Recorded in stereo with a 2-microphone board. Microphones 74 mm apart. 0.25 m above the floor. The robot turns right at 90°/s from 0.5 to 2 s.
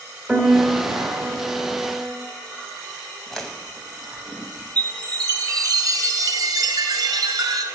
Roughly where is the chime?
Right.